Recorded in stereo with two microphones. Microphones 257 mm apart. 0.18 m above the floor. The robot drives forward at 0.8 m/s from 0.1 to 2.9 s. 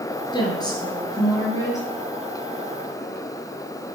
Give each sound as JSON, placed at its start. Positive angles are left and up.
{"t": 0.3, "sound": "a woman speaking", "side_deg": 15, "distance_m": 3.0}